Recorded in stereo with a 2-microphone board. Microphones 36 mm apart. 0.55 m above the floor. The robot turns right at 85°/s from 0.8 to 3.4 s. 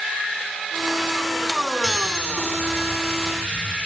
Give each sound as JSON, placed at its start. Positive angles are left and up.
{"t": 1.8, "sound": "a chime", "azimuth_deg": 0, "distance_m": 1.5}